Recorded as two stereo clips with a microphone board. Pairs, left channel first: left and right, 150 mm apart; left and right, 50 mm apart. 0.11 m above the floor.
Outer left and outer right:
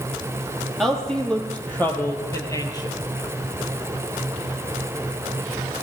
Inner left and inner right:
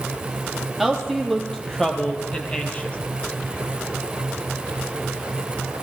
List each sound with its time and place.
0.8 s a woman speaking: centre (ahead or behind), 3.5 m; by 3.0 s 30° left (ahead or behind), 2.5 m